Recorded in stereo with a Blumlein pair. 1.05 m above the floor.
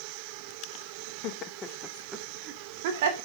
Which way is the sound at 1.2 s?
40° left.